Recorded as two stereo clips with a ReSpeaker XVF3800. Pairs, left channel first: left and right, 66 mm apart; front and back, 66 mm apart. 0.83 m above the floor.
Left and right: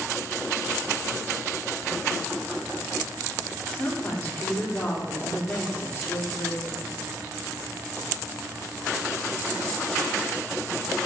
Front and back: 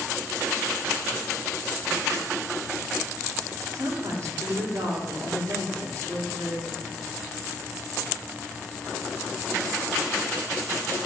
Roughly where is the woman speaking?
Behind left.